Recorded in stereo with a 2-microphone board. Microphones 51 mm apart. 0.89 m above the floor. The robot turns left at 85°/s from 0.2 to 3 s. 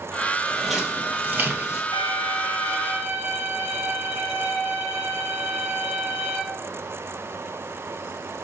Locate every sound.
0.5 s footsteps: 15° left (ahead or behind), 1.5 m; by 1.8 s 35° right (ahead or behind), 1.0 m
1.9 s a violin: 95° right, 2.5 m; by 6.4 s 170° left, 2.5 m